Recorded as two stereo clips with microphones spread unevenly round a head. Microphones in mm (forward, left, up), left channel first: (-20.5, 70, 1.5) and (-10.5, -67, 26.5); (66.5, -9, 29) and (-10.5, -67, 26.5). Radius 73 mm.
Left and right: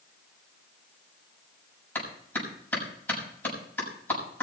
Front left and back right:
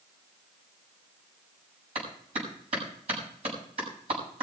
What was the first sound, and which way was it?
A clap, 170° left.